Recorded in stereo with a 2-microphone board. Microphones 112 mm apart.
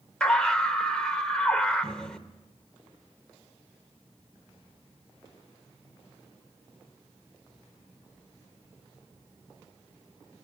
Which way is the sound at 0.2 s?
10° left (ahead or behind).